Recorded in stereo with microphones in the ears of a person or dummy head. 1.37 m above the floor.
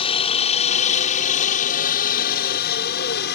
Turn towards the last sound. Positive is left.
turn(degrees=55)  # may be behind; listen again after turning